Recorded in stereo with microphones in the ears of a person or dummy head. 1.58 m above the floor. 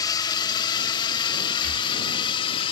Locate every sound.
0.0 s a drone: 20° left (ahead or behind); by 2.7 s 30° left (ahead or behind)
1.6 s breathing: 80° right